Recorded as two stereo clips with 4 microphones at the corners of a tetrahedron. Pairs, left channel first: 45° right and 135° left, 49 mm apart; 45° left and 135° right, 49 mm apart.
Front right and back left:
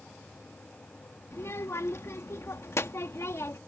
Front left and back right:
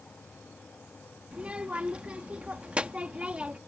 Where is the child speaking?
75° right.